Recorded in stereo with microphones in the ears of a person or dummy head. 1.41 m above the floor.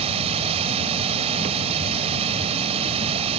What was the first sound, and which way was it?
Running water, 35° right (ahead or behind).